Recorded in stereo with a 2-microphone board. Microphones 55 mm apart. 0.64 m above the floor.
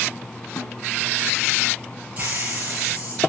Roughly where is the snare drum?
Left.